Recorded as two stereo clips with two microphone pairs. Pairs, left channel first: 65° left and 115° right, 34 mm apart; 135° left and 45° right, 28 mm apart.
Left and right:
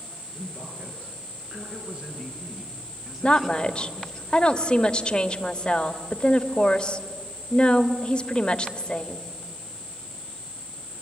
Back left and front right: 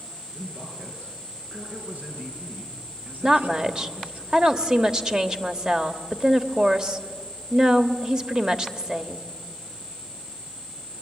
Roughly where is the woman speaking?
Ahead.